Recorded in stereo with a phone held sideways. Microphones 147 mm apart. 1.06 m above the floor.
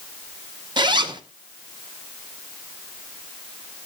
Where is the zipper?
30° right (ahead or behind), 0.8 m.